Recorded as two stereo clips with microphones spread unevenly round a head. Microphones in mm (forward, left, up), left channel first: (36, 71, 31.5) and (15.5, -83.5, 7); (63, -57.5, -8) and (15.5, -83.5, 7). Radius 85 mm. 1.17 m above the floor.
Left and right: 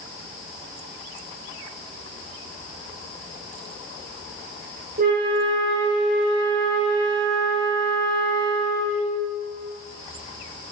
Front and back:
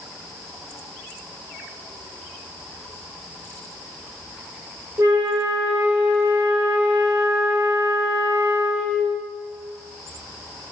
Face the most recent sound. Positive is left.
turn(degrees=-110)